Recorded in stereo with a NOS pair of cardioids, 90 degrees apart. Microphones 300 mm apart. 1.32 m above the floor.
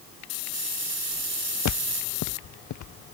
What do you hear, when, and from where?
1.6 s footsteps: 70° left